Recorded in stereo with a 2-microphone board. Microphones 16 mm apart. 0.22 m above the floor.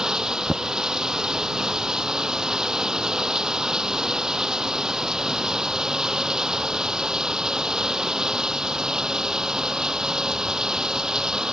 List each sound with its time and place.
0.0 s running water: 40° right (ahead or behind)